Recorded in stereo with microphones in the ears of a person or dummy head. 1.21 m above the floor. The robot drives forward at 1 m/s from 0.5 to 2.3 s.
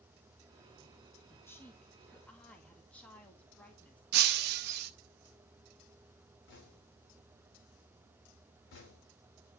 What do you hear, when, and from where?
1.3 s a woman speaking: 15° left (ahead or behind), 1.1 m; by 4.0 s 10° left (ahead or behind), 2 m
4.1 s breaking glass: 55° right (ahead or behind), 1.0 m
6.5 s knocking: 65° left (ahead or behind), 2.5 m